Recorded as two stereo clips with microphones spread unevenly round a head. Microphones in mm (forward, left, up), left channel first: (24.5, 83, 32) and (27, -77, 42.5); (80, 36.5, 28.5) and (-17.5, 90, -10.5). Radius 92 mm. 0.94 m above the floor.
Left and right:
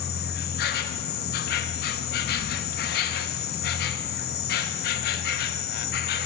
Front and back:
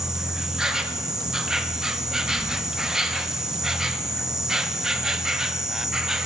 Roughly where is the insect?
Ahead left.